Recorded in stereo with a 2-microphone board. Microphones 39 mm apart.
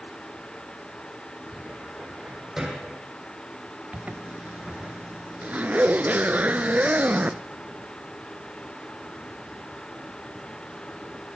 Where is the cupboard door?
10° right (ahead or behind), 5.5 m.